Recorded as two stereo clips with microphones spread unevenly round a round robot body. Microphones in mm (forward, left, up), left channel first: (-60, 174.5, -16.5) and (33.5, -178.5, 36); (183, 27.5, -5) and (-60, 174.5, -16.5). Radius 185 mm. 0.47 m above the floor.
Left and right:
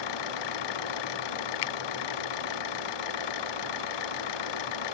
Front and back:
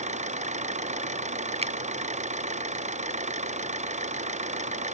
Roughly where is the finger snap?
Left.